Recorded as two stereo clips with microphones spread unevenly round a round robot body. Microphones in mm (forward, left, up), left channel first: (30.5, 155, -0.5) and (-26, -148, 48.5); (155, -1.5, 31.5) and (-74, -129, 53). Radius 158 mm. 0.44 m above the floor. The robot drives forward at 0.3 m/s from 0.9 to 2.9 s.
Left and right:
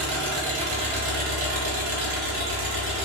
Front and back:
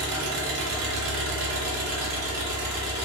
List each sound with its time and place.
0.0 s an engine running: 140° right, 1.1 m; by 3.1 s 155° right, 1.6 m